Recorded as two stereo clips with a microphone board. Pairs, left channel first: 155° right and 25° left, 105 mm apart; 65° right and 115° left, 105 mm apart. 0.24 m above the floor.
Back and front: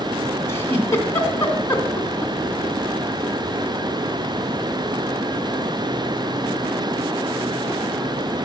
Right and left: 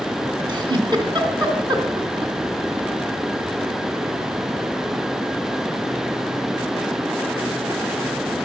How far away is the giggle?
About 2.5 m.